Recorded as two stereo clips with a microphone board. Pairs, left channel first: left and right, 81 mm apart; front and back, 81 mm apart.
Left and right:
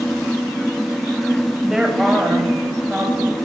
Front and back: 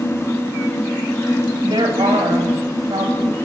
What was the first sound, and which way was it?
A woman speaking, 175° right.